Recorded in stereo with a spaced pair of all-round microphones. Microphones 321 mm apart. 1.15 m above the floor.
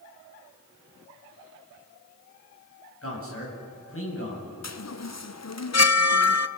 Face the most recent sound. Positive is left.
turn(degrees=55)  # may be behind; listen again after turning